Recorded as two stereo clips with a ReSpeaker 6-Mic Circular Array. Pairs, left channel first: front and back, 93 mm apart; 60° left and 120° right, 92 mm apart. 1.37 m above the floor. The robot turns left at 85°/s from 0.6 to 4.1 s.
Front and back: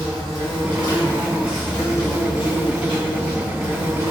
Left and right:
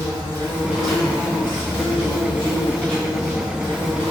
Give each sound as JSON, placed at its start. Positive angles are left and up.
{"t": 0.0, "sound": "an insect", "azimuth_deg": 175, "distance_m": 1.8}